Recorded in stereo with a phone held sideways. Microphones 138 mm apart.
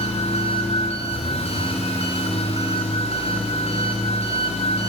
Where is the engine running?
50° left (ahead or behind), 4.5 m.